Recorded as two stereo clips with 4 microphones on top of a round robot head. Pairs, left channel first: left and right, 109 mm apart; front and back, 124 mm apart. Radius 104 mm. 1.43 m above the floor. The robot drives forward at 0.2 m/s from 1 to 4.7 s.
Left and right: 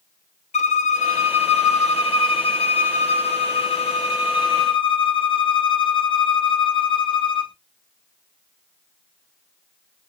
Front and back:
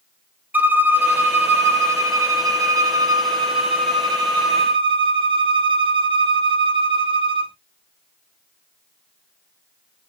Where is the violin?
105° left, 1.2 m; by 7.5 s 130° left, 1.6 m.